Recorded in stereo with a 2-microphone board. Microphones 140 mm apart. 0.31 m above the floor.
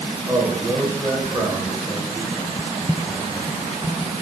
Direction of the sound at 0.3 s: 15° right (ahead or behind).